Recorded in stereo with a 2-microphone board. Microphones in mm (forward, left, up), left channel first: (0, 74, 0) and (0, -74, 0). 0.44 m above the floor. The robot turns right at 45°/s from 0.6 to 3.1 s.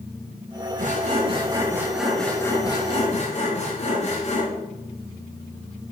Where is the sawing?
60° right, 3 m; by 4.5 s 45° left, 3 m.